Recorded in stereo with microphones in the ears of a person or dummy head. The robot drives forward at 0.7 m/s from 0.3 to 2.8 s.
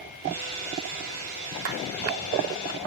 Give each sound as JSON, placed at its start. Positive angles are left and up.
{"t": 1.6, "sound": "a clap", "side_deg": -70, "distance_m": 3.0}